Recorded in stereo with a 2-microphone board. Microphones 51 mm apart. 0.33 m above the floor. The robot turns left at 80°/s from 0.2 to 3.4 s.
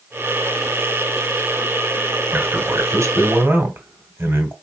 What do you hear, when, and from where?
2.3 s a man speaking: 35° right, 2.0 m; by 4.5 s 125° right, 2.0 m